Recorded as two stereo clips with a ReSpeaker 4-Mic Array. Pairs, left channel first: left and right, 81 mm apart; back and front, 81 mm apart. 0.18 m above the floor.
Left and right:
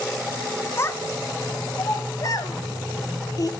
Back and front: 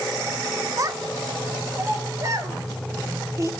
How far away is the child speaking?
About 1.1 m.